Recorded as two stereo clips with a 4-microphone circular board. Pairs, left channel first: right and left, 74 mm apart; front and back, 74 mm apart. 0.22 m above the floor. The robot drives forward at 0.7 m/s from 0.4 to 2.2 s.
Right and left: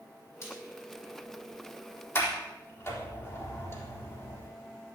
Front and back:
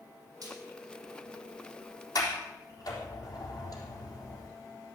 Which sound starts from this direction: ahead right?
A sliding door, at 2.1 s.